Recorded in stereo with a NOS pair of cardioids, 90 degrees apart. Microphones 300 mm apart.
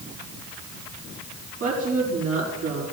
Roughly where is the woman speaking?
Ahead right.